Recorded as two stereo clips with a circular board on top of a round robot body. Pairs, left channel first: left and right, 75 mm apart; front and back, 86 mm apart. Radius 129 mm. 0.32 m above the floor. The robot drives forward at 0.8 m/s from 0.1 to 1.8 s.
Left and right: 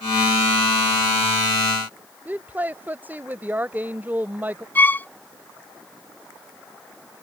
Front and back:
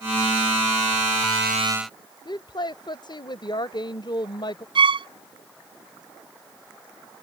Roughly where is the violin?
Behind.